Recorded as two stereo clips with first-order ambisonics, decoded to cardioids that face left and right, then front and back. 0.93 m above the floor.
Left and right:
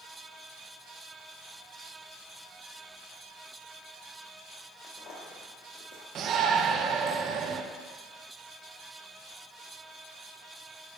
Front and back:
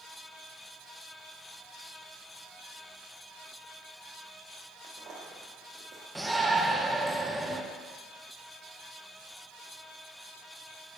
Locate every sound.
4.8 s footsteps: 140° left, 1.8 m; by 6.0 s 105° left, 2.0 m
6.2 s a shout: 100° right, 0.6 m